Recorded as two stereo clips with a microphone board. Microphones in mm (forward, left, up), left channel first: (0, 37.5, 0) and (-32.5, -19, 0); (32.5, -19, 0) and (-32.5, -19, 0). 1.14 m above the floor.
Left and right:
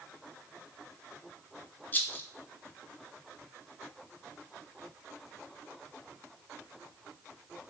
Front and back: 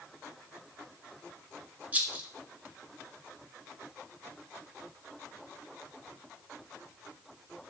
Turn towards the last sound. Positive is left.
turn(degrees=115)